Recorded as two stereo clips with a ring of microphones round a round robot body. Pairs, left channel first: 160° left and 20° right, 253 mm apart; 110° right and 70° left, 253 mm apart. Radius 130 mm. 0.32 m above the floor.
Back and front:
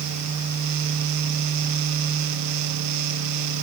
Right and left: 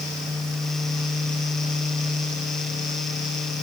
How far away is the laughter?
I don't hear laughter.